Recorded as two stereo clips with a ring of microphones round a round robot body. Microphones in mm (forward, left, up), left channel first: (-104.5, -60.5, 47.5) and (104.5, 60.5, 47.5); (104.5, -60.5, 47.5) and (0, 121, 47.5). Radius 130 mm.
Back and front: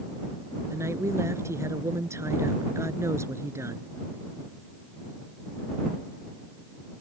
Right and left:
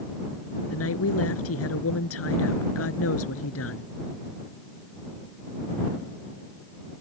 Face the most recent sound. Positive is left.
turn(degrees=-50)